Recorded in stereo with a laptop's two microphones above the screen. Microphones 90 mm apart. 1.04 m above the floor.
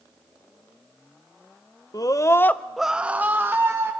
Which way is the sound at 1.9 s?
40° left (ahead or behind).